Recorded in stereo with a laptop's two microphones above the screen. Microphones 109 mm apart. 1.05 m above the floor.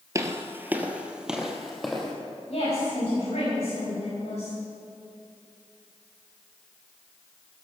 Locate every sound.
0.1 s footsteps: 30° right (ahead or behind), 1.2 m; by 2.1 s 5° left (ahead or behind), 2.5 m
2.5 s a woman speaking: 85° left, 7 m